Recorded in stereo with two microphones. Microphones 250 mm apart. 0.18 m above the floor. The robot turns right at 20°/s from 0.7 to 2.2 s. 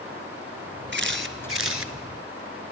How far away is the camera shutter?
About 1.1 m.